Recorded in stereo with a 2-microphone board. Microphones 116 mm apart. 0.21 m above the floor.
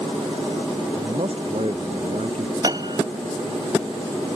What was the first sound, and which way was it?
A man speaking, 60° right (ahead or behind).